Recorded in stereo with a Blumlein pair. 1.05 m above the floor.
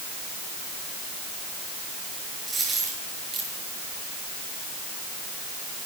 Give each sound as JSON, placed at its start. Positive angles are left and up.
{"t": 2.5, "sound": "a dropped coin", "azimuth_deg": -10, "distance_m": 9.0}